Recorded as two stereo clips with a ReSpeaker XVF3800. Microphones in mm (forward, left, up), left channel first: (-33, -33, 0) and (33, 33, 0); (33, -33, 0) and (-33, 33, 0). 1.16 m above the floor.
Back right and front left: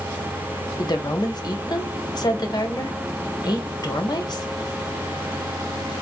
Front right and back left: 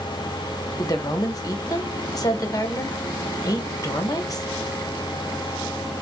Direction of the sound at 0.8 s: 95° right.